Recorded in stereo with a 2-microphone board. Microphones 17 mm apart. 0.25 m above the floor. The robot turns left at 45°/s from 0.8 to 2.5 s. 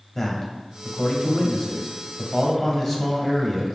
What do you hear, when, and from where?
0.1 s a man speaking: 20° left (ahead or behind), 0.9 m; by 3.8 s 10° left (ahead or behind), 0.9 m